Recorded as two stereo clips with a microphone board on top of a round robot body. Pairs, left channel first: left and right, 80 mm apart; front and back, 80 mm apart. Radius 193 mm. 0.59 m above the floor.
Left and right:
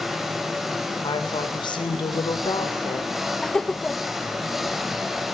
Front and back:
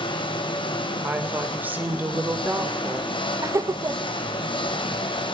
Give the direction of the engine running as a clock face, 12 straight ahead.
12 o'clock.